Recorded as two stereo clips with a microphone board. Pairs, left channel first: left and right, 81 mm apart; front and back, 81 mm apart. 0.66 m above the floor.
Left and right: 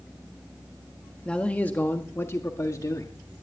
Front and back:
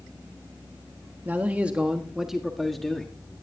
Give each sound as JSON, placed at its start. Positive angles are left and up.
{"t": 1.2, "sound": "a man speaking", "azimuth_deg": 150, "distance_m": 1.2}